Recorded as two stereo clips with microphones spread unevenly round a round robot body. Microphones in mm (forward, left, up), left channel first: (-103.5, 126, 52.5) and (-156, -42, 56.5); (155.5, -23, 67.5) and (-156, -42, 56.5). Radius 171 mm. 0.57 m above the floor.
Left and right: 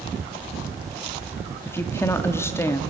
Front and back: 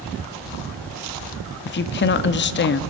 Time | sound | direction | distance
1.6 | a woman speaking | 15° left | 0.6 m